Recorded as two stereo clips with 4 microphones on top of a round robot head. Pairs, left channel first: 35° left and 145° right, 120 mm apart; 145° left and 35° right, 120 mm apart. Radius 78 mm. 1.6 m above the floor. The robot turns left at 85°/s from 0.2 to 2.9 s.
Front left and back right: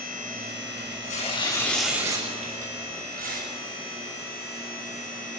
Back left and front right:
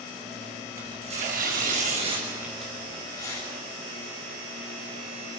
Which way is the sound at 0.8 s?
35° left.